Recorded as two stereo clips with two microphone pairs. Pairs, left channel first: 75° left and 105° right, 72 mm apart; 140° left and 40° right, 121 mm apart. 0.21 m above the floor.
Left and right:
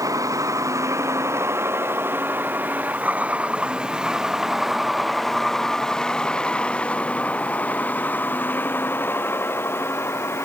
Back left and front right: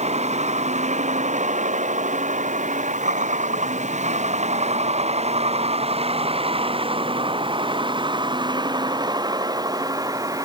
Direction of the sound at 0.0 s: 60° right.